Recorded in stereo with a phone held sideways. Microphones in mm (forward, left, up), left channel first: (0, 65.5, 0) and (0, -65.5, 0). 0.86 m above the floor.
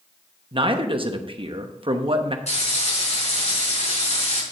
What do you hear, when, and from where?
0.5 s a man speaking: 40° right (ahead or behind), 0.9 m
2.5 s frying: 60° left (ahead or behind), 5 m